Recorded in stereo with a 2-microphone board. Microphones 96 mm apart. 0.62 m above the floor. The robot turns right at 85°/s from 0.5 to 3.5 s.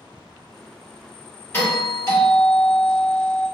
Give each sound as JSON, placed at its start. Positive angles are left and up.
{"t": 1.5, "sound": "a doorbell", "azimuth_deg": 45, "distance_m": 1.5}